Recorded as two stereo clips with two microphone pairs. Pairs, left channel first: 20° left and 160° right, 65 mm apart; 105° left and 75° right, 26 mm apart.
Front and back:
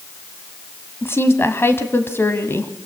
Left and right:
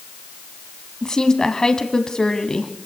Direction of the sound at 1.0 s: 50° left.